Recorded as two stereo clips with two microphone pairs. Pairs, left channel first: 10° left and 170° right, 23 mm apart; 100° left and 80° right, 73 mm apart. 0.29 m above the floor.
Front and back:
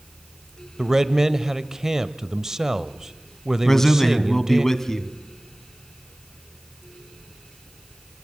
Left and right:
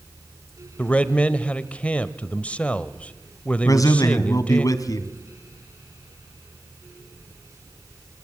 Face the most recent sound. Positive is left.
turn(degrees=75)